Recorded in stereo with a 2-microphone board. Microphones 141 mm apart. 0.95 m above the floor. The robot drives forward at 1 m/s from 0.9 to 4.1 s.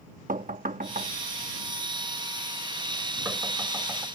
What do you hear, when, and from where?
0.3 s knocking: 75° right (ahead or behind); by 4.0 s 15° right (ahead or behind)